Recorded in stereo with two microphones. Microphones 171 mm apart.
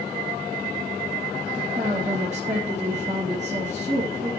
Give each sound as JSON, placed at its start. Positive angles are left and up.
{"t": 1.5, "sound": "a woman speaking", "side_deg": -40, "distance_m": 3.0}